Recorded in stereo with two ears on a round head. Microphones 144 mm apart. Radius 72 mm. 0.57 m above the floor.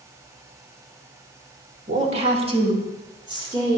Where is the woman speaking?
45° right (ahead or behind), 1.4 m; by 3.8 s 25° right (ahead or behind), 3 m.